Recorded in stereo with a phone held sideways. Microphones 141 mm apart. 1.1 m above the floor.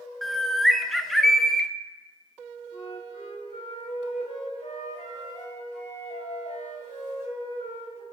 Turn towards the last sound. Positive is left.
turn(degrees=60)  # may be behind; listen again after turning